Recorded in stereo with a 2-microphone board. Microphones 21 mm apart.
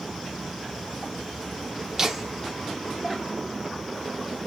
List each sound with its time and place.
2.0 s laughter: 15° right (ahead or behind), 0.7 m; by 3.6 s 25° left (ahead or behind), 1.0 m